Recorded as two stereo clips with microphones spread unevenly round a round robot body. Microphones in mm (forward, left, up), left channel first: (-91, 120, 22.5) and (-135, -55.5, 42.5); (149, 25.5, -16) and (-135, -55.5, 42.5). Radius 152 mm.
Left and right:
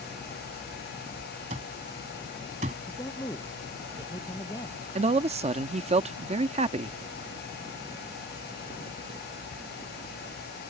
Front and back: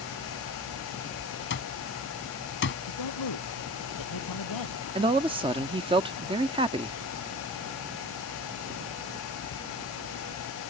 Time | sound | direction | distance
1.5 | an alarm clock | 40° right | ?
2.9 | a man speaking | straight ahead | ?
5.0 | a man speaking | 85° right | ?